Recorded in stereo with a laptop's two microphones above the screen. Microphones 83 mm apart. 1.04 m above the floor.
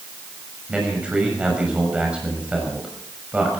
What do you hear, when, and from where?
0.7 s a man speaking: 10° right (ahead or behind), 6.5 m